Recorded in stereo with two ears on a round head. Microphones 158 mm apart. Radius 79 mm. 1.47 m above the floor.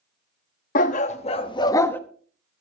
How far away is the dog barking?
About 1.1 m.